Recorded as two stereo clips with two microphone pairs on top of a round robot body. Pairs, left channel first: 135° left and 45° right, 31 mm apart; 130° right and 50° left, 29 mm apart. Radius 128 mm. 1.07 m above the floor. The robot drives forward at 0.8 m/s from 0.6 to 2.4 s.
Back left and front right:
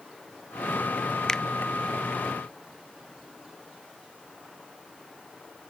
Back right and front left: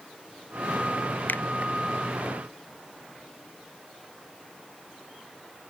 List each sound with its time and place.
1.3 s a finger snap: 150° right; by 1.4 s 155° right